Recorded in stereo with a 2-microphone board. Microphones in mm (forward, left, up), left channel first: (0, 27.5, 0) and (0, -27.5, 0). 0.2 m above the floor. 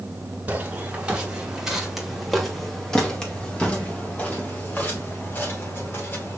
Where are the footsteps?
25° right (ahead or behind), 2.5 m; by 6.4 s 40° left (ahead or behind), 4.5 m.